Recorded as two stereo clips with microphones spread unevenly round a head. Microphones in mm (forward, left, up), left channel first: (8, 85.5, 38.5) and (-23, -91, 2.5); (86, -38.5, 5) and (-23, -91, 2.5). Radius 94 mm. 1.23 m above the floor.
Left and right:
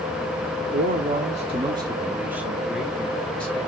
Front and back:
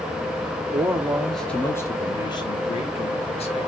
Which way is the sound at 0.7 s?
95° right.